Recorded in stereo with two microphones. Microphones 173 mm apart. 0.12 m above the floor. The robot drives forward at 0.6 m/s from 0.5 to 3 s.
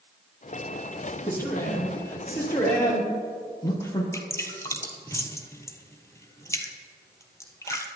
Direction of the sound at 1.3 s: 15° left (ahead or behind).